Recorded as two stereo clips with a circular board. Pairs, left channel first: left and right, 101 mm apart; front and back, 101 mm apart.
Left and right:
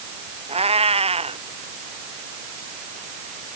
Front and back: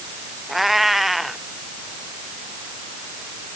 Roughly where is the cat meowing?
Right.